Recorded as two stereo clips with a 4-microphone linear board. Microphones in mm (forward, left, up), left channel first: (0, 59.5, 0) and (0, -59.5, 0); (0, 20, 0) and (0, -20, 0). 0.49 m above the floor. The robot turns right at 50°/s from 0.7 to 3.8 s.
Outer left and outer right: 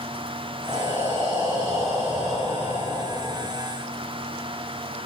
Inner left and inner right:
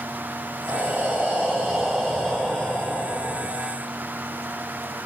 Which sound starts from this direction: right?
Breathing, at 0.7 s.